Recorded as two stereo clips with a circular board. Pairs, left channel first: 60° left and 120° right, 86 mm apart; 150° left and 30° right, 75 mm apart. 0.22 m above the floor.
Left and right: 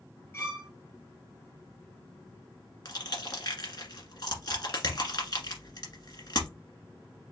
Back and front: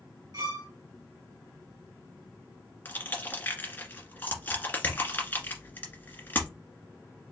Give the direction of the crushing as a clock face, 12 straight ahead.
9 o'clock.